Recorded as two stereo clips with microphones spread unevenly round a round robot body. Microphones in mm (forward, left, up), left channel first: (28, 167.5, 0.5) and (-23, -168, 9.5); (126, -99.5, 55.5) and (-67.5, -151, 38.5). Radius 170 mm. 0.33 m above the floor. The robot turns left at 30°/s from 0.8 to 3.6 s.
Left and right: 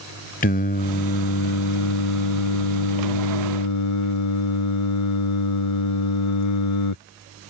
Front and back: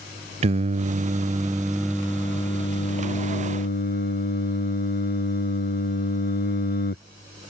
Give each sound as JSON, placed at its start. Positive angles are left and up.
{"t": 0.4, "sound": "singing", "azimuth_deg": 145}